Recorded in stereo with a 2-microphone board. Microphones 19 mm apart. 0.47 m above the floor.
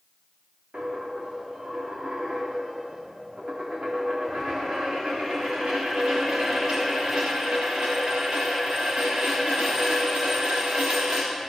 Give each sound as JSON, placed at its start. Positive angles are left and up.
{"t": 0.7, "sound": "a dropped coin", "side_deg": -65, "distance_m": 3.5}